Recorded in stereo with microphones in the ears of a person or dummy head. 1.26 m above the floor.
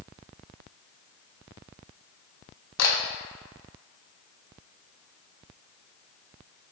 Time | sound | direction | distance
2.8 | a camera shutter | 75° left (ahead or behind) | 0.7 m